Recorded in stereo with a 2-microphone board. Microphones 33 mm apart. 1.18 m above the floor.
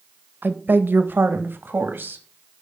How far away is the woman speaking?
About 1.3 m.